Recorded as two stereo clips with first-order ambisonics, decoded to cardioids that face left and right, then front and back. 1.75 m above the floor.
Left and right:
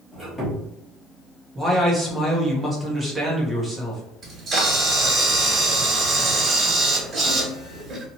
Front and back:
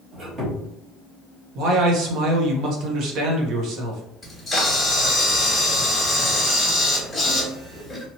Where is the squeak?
175° left, 1.2 m.